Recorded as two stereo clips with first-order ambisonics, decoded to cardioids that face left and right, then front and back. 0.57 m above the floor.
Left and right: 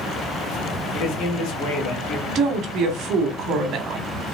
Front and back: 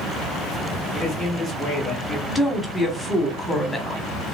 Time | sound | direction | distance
0.9 | a man speaking | 95° left | 1.8 m
2.3 | a woman speaking | 85° right | 0.9 m